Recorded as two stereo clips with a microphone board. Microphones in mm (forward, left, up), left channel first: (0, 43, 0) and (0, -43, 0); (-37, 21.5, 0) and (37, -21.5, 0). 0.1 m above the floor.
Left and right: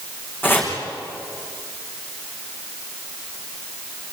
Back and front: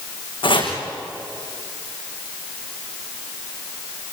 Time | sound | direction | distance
0.4 | chopping | 155° left | 6.5 m